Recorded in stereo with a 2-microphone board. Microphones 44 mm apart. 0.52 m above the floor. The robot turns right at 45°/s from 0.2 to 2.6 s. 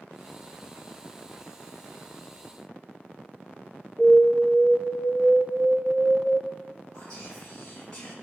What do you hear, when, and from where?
4.0 s an alarm: 25° right (ahead or behind), 3 m
6.9 s whispering: 20° left (ahead or behind), 1.2 m